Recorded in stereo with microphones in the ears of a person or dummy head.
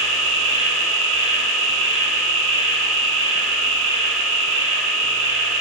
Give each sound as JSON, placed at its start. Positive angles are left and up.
{"t": 0.0, "sound": "an insect", "side_deg": 60, "distance_m": 3.0}